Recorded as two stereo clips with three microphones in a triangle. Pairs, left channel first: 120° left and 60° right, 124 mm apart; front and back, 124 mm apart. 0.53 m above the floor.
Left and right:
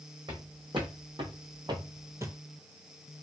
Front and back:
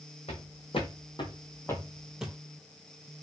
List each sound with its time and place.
0.3 s footsteps: 20° right, 1.2 m; by 2.4 s 115° right, 0.6 m